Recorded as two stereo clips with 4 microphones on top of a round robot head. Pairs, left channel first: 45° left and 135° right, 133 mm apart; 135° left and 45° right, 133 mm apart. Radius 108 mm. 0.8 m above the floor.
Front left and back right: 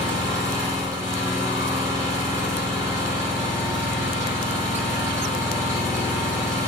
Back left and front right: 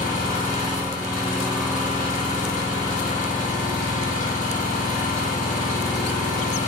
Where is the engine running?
155° left, 1.3 m.